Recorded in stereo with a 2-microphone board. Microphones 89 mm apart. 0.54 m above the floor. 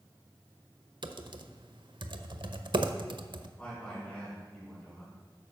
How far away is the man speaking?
About 4.5 m.